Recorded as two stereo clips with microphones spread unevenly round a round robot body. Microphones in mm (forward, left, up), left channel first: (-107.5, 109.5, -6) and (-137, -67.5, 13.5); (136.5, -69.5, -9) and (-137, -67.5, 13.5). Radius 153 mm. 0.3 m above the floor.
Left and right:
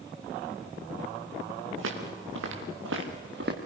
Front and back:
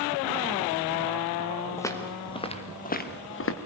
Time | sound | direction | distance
1.8 | footsteps | 80° right | 4 m